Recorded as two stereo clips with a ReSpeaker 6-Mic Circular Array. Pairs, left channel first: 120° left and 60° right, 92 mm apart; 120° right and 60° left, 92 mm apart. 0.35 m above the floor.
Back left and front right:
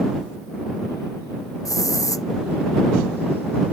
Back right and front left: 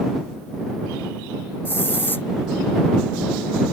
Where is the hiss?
170° left.